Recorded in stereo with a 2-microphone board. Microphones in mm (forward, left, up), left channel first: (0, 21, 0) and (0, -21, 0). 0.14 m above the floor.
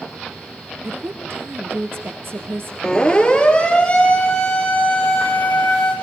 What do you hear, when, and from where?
0.8 s a woman speaking: 65° right (ahead or behind), 3 m
2.8 s a siren: 15° left (ahead or behind), 3.5 m; by 5.9 s 25° left (ahead or behind), 7 m